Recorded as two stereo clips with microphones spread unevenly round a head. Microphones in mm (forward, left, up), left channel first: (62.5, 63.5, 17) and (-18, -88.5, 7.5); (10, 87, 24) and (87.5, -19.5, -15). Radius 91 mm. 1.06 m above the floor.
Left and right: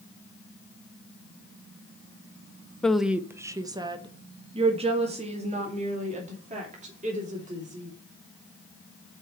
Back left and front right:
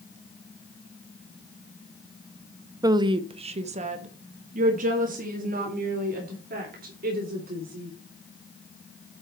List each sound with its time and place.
2.8 s a woman speaking: 25° right, 0.7 m; by 7.9 s 70° right, 3.5 m